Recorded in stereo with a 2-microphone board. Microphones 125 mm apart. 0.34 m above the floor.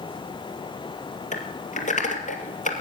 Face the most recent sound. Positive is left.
turn(degrees=85)